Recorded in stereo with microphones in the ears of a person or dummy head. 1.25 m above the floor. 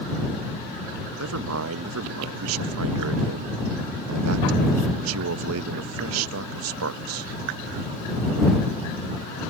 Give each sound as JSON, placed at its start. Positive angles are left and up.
{"t": 1.2, "sound": "a man speaking", "side_deg": -85}